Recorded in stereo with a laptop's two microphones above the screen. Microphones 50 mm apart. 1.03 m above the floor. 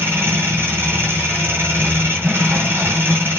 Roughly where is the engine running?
Right.